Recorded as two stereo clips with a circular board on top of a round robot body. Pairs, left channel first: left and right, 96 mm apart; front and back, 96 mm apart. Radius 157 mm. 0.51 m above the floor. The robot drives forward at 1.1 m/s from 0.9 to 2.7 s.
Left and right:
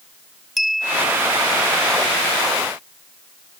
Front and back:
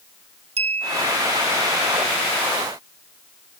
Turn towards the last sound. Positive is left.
turn(degrees=180)